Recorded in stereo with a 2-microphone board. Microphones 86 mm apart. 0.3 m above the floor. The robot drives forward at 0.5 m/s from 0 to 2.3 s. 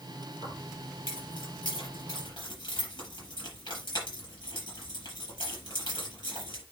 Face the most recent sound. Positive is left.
turn(degrees=55)  # may be behind; listen again after turning